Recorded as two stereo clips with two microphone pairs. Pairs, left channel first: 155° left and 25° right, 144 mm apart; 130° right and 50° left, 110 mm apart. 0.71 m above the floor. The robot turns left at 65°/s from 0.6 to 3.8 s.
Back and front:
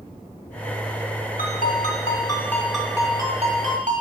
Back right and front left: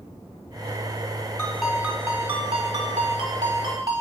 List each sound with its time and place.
1.4 s a ringtone: 155° left, 1.2 m; by 4.0 s straight ahead, 1.2 m